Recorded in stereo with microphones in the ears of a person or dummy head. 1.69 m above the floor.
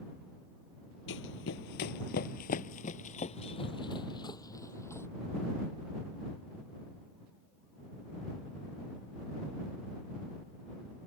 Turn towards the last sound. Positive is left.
turn(degrees=10)  # may be behind; listen again after turning